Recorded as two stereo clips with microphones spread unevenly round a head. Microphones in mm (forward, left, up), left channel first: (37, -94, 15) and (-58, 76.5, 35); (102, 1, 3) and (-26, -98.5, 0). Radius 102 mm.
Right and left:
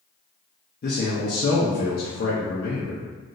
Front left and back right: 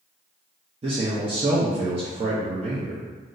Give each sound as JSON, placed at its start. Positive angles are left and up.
{"t": 0.8, "sound": "a man speaking", "azimuth_deg": -95, "distance_m": 0.5}